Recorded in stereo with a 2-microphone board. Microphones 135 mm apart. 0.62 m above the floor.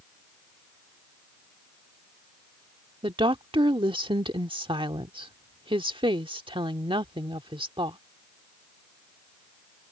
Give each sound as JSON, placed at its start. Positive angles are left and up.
{"t": 3.0, "sound": "a woman speaking", "side_deg": -35}